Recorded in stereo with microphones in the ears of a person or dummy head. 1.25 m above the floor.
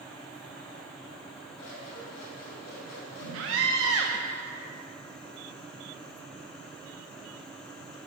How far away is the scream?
About 0.6 m.